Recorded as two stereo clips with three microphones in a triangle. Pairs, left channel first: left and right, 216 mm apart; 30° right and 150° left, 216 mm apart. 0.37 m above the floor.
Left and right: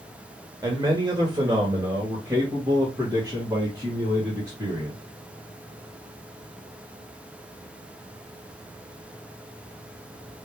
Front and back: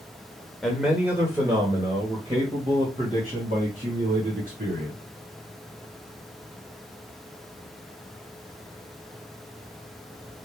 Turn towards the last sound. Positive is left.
turn(degrees=-165)